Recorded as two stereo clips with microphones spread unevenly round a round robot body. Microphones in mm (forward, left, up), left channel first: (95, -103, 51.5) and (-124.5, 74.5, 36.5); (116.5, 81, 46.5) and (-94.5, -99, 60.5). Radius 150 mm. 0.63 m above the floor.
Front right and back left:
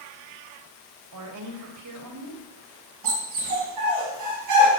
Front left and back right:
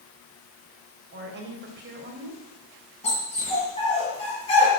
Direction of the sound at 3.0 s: 115° left.